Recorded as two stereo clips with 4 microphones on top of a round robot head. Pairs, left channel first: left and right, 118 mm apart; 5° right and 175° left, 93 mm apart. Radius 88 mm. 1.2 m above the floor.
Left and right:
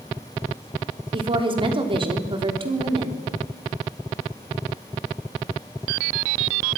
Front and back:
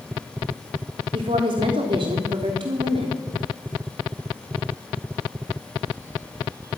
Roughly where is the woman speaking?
Behind right.